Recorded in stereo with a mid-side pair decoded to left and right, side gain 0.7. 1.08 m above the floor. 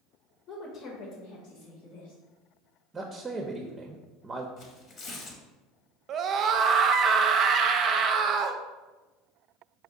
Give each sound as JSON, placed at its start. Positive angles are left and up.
{"t": 0.5, "sound": "a woman speaking", "azimuth_deg": 50, "distance_m": 0.9}
{"t": 2.9, "sound": "a man speaking", "azimuth_deg": -20, "distance_m": 0.6}
{"t": 4.6, "sound": "tearing paper", "azimuth_deg": 45, "distance_m": 1.0}
{"t": 6.1, "sound": "a scream", "azimuth_deg": -40, "distance_m": 0.5}